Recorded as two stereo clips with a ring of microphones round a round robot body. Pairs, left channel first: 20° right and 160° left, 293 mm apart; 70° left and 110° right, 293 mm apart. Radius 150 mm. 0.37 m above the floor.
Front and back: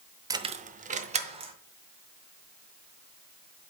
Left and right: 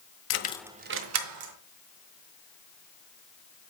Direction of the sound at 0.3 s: 85° left.